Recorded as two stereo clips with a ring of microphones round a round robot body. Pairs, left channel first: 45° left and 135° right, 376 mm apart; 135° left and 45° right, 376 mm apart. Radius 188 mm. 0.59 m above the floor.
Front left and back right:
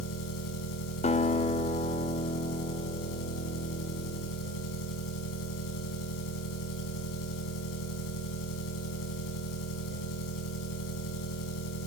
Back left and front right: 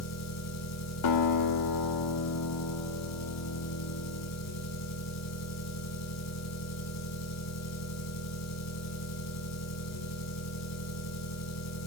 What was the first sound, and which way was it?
An engine running, 85° left.